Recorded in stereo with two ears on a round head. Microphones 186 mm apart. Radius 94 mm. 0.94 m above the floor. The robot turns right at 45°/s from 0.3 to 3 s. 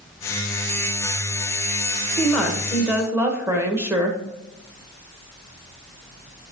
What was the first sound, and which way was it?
A woman speaking, 165° left.